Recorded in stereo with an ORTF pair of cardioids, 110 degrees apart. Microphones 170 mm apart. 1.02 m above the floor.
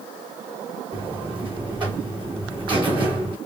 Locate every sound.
0.9 s a buzzer: 30° right, 2.5 m